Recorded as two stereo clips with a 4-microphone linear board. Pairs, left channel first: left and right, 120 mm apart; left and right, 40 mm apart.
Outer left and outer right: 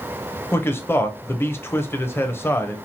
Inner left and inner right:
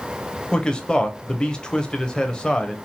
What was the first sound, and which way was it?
A man speaking, 20° left (ahead or behind).